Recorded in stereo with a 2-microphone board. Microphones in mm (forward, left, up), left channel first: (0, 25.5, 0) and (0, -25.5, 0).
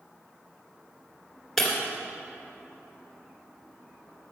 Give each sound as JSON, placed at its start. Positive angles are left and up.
{"t": 1.6, "sound": "breaking glass", "side_deg": 5, "distance_m": 2.0}